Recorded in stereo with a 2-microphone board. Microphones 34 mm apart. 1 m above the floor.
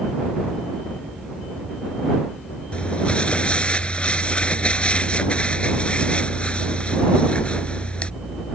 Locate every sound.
2.7 s crumpling: 30° left (ahead or behind)